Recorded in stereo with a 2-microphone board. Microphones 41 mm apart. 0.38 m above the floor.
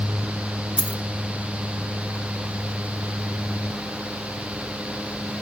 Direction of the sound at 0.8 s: 30° right (ahead or behind).